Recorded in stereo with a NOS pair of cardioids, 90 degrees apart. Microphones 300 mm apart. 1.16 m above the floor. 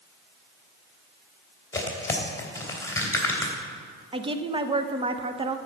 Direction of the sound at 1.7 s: 10° left.